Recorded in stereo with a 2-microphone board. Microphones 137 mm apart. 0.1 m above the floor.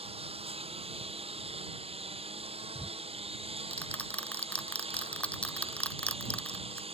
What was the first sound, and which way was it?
A lawn mower, 45° right (ahead or behind).